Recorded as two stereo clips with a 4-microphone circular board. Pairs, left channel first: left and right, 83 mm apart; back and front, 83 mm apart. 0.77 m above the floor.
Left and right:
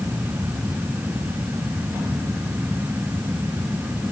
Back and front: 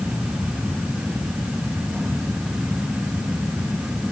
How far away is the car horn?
I don't hear a car horn.